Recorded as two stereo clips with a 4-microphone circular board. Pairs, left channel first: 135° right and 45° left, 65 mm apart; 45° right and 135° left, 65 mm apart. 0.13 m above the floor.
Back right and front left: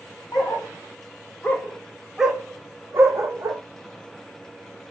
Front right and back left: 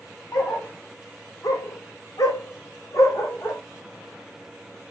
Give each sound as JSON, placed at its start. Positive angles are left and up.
{"t": 0.3, "sound": "a dog barking", "azimuth_deg": -100, "distance_m": 1.3}